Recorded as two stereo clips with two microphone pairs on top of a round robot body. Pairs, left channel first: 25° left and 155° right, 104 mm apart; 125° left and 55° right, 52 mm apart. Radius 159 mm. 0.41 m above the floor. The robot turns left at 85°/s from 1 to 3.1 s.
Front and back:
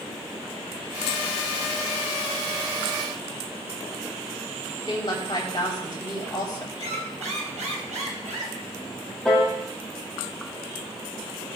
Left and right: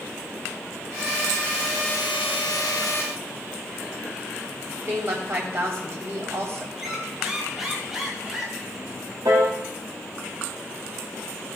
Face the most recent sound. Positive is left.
turn(degrees=-60)